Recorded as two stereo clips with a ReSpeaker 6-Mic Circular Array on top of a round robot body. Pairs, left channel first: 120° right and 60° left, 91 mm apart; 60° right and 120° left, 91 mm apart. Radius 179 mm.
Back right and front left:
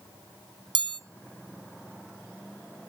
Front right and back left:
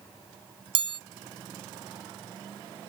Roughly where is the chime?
Left.